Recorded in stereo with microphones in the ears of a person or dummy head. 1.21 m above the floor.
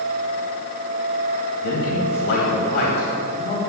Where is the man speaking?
55° left (ahead or behind), 2.5 m.